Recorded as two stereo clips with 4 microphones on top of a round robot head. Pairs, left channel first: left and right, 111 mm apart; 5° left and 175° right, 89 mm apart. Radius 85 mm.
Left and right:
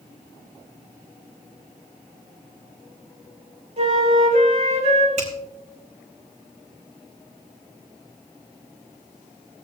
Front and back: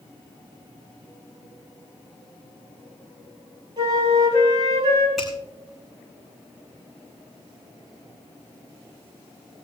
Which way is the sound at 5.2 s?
85° right.